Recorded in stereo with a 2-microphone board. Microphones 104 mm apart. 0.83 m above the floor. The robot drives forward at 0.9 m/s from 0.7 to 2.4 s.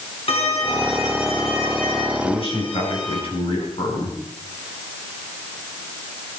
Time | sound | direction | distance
0.3 | a violin | 70° left (ahead or behind) | 4 m
2.2 | a man speaking | 65° left (ahead or behind) | 6.5 m